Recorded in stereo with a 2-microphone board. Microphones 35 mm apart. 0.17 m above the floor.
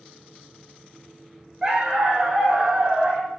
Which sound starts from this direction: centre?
A dog barking, at 1.6 s.